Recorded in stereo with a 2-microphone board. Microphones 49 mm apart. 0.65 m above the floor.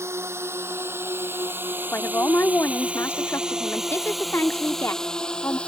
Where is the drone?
65° right (ahead or behind); by 5.7 s 20° left (ahead or behind).